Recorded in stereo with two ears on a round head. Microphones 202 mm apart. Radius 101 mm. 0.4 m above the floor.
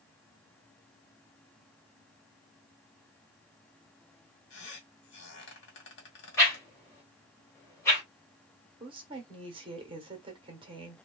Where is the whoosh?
15° left (ahead or behind), 1.8 m.